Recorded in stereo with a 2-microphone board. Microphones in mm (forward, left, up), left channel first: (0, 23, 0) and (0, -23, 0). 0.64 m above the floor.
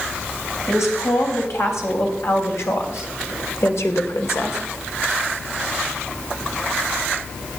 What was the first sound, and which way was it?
A woman speaking, 75° left (ahead or behind).